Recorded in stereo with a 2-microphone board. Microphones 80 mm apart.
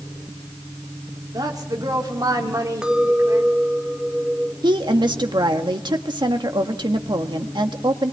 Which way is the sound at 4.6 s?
70° right (ahead or behind).